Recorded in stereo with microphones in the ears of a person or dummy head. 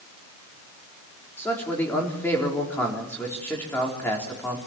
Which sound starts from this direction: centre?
A man speaking, at 1.4 s.